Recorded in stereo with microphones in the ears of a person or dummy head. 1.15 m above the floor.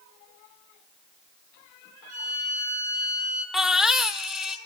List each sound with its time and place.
2.1 s a violin: 45° right (ahead or behind), 8 m
3.5 s a baby crying: 5° right (ahead or behind), 1.0 m